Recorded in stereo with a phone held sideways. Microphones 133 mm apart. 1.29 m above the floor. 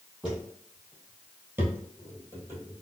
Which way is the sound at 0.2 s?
5° right (ahead or behind).